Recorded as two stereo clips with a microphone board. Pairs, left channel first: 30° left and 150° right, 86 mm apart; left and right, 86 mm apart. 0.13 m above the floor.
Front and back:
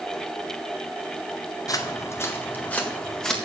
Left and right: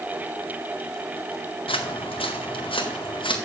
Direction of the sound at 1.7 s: 80° left.